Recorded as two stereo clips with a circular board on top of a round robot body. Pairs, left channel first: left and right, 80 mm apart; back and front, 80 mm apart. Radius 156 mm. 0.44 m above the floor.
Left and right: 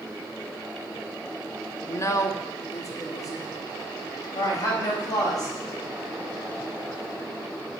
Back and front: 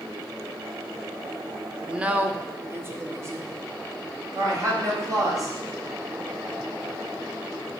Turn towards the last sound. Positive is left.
turn(degrees=45)